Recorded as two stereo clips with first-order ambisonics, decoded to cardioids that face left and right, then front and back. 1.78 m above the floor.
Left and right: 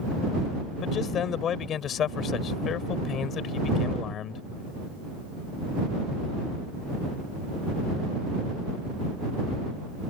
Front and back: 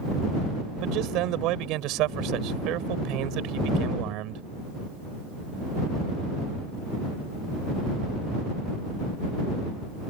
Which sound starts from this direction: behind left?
A man speaking, at 0.8 s.